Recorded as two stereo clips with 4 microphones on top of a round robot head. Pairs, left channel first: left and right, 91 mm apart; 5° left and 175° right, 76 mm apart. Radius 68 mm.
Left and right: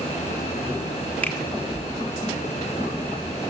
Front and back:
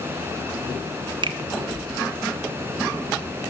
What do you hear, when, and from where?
1.2 s a finger snap: 165° left, 1.2 m